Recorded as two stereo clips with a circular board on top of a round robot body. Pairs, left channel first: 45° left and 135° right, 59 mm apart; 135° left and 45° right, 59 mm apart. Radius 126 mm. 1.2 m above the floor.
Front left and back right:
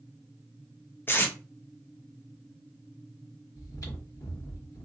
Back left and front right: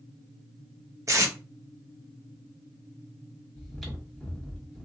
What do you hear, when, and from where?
1.1 s tape being pulled: 10° right, 0.7 m
3.5 s chewing: 50° left, 1.3 m